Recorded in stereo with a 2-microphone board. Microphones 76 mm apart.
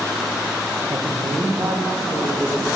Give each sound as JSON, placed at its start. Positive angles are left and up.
{"t": 0.9, "sound": "a woman speaking", "side_deg": -50, "distance_m": 0.6}